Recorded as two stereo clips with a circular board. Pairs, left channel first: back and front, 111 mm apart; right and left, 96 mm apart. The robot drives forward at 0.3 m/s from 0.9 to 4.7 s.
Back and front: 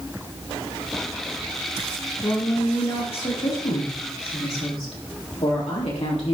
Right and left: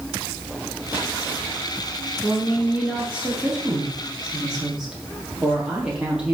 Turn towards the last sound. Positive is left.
turn(degrees=170)